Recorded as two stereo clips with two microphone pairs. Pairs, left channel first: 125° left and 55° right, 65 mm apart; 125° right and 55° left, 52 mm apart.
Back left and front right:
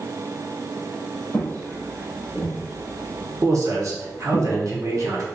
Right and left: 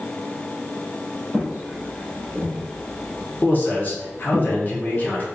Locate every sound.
1.3 s footsteps: 85° left, 1.9 m; by 4.4 s 40° right, 1.8 m
3.4 s a man speaking: 80° right, 0.7 m